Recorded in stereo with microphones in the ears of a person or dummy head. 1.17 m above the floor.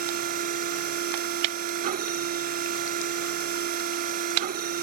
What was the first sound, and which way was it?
A machine running, 45° right (ahead or behind).